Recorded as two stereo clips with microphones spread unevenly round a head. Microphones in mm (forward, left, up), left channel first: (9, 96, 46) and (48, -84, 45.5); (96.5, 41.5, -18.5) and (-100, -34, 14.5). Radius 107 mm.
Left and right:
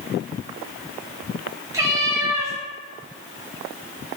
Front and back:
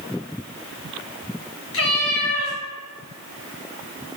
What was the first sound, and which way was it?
A cat meowing, 5° right.